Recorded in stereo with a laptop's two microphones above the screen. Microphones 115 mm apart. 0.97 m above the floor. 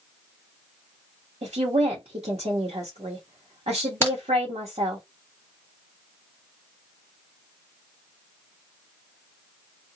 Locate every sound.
1.4 s a woman speaking: 80° right, 1.1 m
4.0 s a crack: 20° left (ahead or behind), 1.1 m